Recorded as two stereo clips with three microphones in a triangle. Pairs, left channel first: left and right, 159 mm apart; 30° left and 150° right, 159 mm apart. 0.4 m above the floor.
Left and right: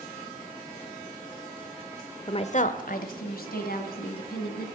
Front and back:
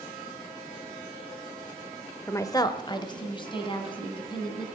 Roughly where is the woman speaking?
Left.